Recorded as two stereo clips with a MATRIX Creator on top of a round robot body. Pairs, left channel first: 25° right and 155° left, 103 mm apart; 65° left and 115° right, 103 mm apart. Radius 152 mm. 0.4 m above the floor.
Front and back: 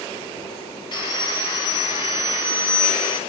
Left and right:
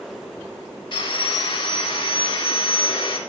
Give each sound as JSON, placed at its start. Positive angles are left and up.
{"t": 0.9, "sound": "sawing", "azimuth_deg": 25, "distance_m": 3.0}